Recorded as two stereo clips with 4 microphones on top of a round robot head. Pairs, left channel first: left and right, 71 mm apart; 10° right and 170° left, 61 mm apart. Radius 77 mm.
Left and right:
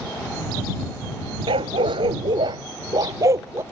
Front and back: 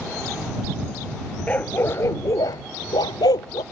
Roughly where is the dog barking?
Right.